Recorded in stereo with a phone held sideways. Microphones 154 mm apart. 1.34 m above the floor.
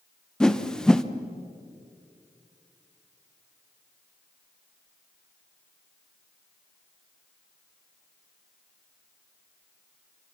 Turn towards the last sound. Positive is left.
turn(degrees=5)  # may be behind; listen again after turning